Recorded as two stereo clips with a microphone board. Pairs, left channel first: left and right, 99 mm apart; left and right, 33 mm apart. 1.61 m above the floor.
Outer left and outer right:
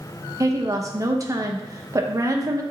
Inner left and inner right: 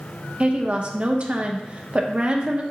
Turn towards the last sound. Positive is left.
turn(degrees=-35)  # may be behind; listen again after turning